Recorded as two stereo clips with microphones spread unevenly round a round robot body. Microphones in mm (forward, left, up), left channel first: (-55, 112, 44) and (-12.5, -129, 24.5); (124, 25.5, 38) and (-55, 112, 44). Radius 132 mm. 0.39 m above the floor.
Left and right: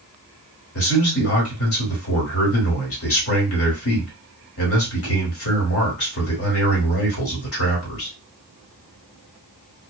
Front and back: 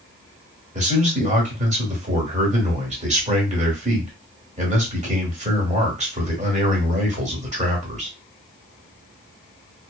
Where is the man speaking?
105° left, 1.6 m.